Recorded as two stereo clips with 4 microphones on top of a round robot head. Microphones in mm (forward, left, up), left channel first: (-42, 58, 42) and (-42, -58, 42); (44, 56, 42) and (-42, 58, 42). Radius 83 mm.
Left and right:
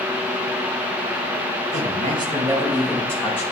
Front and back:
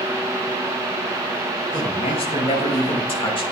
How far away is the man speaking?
About 1.7 m.